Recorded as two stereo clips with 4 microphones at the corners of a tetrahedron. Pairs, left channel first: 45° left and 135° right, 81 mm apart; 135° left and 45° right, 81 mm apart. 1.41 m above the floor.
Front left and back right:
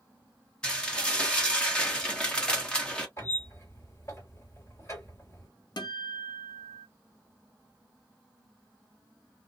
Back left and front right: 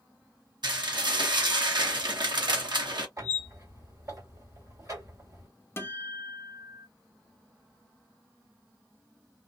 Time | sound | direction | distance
0.6 | dishes clattering | 30° right | 1.0 m
3.2 | a squeak | 5° right | 1.8 m
5.8 | a guitar | 75° left | 0.7 m